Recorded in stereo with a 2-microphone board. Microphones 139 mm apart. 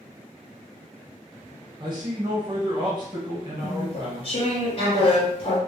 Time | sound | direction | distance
1.8 | a man speaking | 35° right (ahead or behind) | 0.9 m
3.6 | chewing | 40° left (ahead or behind) | 0.8 m